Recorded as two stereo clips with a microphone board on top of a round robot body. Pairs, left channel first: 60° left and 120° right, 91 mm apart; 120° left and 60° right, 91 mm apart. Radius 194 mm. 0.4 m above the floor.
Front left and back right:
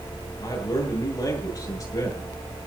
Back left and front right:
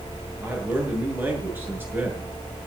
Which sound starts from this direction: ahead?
A man speaking, at 0.4 s.